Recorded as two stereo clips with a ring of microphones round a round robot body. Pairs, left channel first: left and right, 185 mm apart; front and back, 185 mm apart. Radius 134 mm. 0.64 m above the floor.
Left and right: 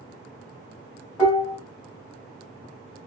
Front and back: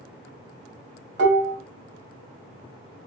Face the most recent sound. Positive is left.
turn(degrees=170)